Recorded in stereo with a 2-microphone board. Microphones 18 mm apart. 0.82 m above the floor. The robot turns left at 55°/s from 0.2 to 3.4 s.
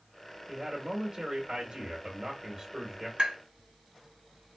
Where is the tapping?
60° right (ahead or behind), 1.6 m; by 3.4 s 50° right (ahead or behind), 1.6 m.